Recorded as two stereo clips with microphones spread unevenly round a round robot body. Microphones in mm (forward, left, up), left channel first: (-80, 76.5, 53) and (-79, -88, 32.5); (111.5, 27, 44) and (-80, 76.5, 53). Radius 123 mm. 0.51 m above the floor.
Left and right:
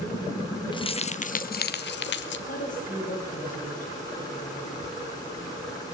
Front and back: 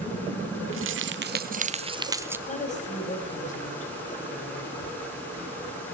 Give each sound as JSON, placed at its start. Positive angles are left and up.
{"t": 0.7, "sound": "keys jangling", "azimuth_deg": 155, "distance_m": 1.2}
{"t": 2.5, "sound": "a woman speaking", "azimuth_deg": 35, "distance_m": 3.5}